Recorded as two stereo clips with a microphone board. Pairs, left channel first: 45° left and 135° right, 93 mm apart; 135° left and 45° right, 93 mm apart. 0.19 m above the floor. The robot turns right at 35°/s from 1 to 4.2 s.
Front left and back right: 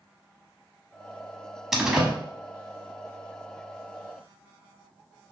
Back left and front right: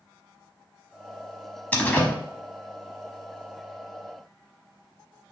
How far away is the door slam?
About 0.8 m.